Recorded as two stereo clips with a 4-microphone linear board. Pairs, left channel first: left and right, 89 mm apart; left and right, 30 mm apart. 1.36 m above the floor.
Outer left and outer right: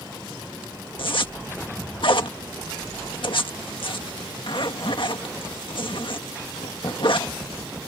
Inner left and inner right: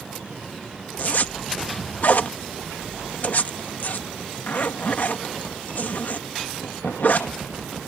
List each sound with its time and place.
1.0 s a zipper: 70° left (ahead or behind)